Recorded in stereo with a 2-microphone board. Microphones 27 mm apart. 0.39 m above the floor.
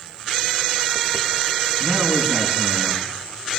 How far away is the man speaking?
About 5.5 m.